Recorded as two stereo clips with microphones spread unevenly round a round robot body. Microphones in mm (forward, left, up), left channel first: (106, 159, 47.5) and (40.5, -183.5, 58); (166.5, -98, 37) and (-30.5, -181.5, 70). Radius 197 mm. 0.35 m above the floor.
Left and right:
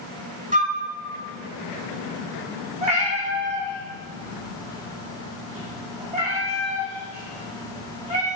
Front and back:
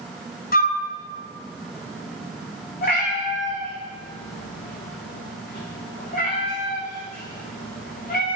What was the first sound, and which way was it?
A flute, 30° right.